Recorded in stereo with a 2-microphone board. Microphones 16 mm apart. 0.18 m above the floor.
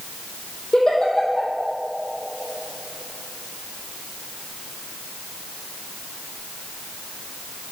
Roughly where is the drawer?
I don't hear a drawer.